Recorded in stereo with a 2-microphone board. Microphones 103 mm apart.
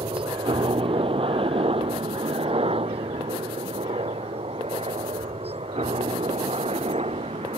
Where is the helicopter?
55° right (ahead or behind); by 7.6 s 75° right (ahead or behind).